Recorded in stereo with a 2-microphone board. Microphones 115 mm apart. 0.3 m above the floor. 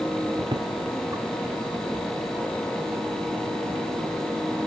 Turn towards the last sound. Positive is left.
turn(degrees=10)  # may be behind; listen again after turning